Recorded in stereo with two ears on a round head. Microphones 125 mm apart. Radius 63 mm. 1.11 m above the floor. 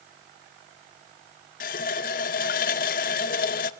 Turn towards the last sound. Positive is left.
turn(degrees=65)  # may be behind; listen again after turning